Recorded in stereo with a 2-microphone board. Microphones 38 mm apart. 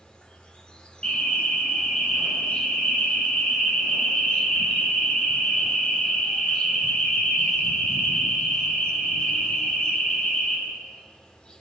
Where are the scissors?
I don't hear scissors.